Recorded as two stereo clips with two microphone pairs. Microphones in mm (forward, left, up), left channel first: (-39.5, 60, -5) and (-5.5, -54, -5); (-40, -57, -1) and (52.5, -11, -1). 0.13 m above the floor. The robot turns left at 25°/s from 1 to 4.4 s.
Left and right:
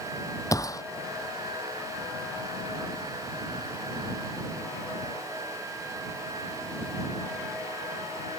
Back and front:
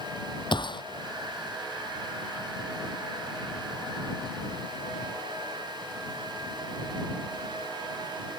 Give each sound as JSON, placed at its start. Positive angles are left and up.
{"t": 0.5, "sound": "a gunshot", "azimuth_deg": 170}